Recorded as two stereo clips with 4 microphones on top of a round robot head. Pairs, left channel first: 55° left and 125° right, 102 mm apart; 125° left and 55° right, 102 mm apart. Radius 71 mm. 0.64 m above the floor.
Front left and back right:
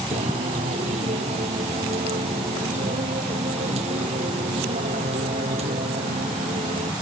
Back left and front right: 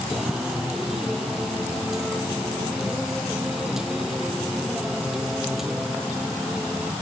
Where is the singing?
140° right.